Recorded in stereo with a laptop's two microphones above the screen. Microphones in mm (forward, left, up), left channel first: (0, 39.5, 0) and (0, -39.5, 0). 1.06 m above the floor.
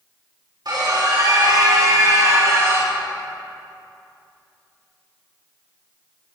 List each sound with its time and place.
0.7 s a scream: 60° right (ahead or behind), 3.5 m; by 3.0 s 35° right (ahead or behind), 2.5 m